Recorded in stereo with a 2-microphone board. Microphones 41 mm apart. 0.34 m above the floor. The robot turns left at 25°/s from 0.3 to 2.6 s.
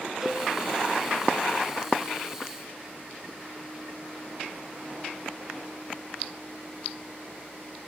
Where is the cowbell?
15° right (ahead or behind), 3 m; by 0.5 s 20° right (ahead or behind), 3 m.